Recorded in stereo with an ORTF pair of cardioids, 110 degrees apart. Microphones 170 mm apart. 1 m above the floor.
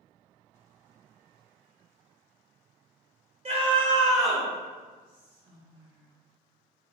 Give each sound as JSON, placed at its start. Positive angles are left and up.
{"t": 3.5, "sound": "a scream", "azimuth_deg": -40, "distance_m": 1.2}
{"t": 5.0, "sound": "whispering", "azimuth_deg": -25, "distance_m": 0.6}